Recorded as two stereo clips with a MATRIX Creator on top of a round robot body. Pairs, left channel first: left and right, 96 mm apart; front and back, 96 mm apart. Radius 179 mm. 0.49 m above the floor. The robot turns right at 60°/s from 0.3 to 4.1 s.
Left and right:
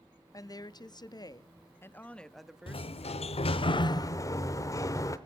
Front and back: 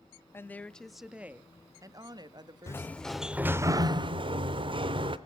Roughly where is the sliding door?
Ahead left.